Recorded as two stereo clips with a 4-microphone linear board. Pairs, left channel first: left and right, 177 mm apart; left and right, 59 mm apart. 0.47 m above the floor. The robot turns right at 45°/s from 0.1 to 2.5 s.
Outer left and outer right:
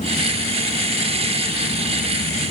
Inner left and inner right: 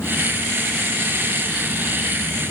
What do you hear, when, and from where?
Only background noise.